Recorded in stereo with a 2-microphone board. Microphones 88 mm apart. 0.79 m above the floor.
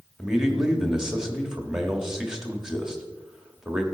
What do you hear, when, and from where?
0.2 s a man speaking: 5° right (ahead or behind), 1.4 m